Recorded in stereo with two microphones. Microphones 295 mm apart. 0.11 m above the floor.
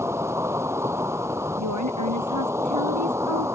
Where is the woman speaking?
75° right (ahead or behind).